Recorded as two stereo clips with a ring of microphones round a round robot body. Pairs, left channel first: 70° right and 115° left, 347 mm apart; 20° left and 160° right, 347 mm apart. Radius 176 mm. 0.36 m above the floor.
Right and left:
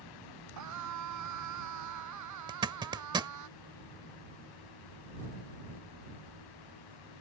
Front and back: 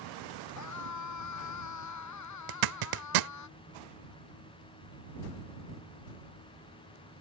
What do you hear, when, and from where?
0.6 s a scream: 65° left; by 3.5 s 70° left
2.5 s a zipper: 170° right